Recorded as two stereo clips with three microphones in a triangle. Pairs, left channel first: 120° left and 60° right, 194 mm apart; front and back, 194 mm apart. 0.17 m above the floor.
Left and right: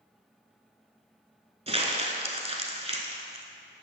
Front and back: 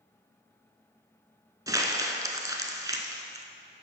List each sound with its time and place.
1.7 s crumpling: 110° right, 0.8 m